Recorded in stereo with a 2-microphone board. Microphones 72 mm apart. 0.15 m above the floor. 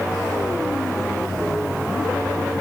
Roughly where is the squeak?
No squeak in this recording.